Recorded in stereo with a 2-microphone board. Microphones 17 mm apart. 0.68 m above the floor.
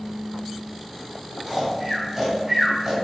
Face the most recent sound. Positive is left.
turn(degrees=-35)  # may be behind; listen again after turning